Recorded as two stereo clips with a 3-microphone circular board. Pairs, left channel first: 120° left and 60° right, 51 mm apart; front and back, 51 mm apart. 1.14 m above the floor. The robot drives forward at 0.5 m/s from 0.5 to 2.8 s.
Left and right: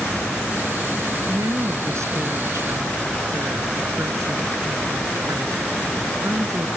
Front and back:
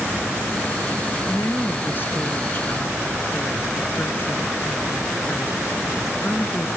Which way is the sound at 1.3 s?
45° right.